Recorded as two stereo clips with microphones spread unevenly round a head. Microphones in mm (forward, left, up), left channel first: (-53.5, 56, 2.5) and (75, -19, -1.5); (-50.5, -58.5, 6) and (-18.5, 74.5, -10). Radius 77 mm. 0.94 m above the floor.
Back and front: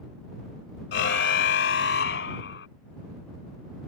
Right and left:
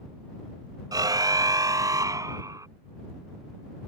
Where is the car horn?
140° left; by 2.7 s 145° left.